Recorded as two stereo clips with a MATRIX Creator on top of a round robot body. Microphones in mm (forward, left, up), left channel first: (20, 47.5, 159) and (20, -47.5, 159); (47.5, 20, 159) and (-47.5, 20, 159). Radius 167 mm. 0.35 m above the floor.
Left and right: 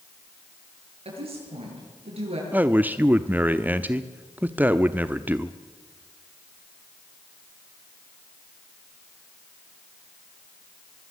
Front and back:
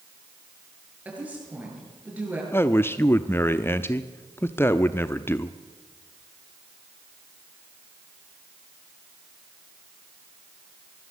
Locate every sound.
1.1 s a woman speaking: 105° right, 9 m
2.5 s a man speaking: 35° right, 1.0 m